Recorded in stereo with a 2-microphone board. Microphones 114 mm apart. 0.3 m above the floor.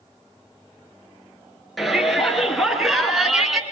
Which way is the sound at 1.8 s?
Centre (ahead or behind).